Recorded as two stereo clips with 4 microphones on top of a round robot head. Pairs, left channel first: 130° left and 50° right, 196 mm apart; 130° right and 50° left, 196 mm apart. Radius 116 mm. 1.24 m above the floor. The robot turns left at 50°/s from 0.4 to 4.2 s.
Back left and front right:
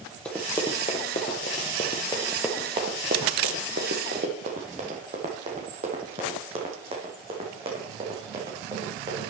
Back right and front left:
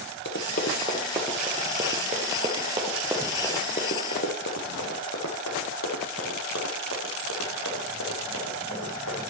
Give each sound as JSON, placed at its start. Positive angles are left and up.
{"t": 0.2, "sound": "running footsteps", "azimuth_deg": -150, "distance_m": 1.6}